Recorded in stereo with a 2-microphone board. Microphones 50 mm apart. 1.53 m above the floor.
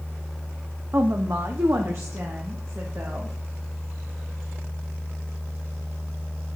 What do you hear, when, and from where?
0.9 s a woman speaking: 50° right (ahead or behind), 0.7 m; by 3.4 s 60° right (ahead or behind), 2 m